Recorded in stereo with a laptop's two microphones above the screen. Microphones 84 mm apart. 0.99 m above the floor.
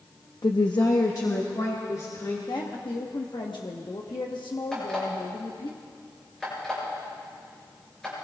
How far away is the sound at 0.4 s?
About 0.7 m.